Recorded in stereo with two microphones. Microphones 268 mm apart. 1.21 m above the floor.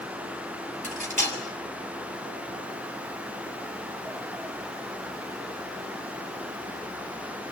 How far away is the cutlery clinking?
About 6 m.